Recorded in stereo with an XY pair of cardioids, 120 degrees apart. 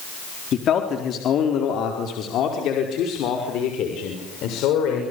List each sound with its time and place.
0.5 s a man speaking: 50° left, 4 m; by 5.0 s 75° left, 7 m